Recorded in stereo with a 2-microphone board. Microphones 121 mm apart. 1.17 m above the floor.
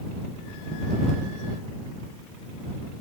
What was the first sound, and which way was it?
Only background noise.